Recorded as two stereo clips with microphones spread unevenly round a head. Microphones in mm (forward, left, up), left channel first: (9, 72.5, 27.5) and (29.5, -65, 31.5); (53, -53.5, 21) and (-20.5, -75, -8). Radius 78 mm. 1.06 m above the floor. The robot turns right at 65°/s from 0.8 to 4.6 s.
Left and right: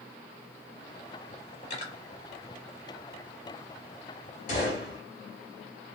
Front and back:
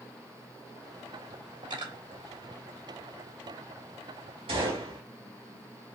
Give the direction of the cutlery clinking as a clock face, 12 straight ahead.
7 o'clock.